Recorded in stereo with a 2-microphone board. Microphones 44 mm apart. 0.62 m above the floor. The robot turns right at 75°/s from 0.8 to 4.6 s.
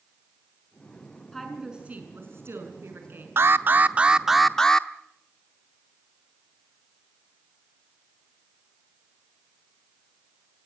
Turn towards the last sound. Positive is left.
turn(degrees=15)